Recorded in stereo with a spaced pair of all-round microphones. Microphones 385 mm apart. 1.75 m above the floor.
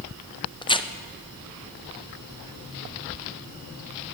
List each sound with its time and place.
0.6 s tearing paper: 15° left (ahead or behind), 0.5 m